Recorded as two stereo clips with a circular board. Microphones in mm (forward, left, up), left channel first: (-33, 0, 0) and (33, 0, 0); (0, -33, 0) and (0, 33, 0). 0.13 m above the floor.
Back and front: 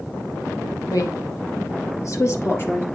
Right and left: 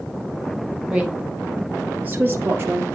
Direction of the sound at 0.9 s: 165° left.